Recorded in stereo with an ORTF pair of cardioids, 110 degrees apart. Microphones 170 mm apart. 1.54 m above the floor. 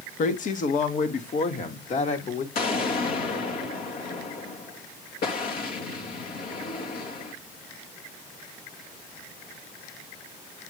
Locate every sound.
0.2 s a woman speaking: 50° left, 1.8 m; by 2.5 s 45° left, 3 m
2.5 s an explosion: 60° left, 2.5 m